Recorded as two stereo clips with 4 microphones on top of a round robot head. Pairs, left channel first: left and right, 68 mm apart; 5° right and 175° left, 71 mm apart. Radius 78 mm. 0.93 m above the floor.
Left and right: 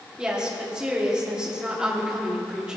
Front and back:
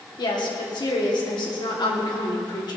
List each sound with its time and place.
0.2 s a woman speaking: 10° right, 3 m